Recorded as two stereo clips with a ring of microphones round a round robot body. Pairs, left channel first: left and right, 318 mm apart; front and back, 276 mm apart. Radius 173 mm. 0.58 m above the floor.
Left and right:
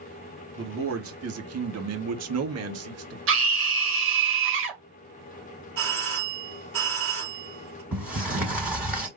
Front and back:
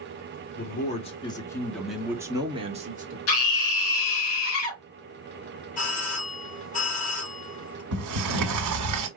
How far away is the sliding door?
About 1.4 m.